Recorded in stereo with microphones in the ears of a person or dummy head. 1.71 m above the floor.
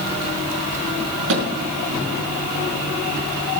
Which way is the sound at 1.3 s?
70° right (ahead or behind).